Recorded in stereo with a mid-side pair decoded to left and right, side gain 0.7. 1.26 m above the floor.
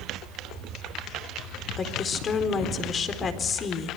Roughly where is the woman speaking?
Ahead left.